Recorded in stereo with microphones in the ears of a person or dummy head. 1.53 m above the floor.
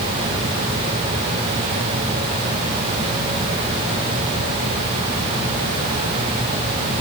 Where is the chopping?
I don't hear chopping.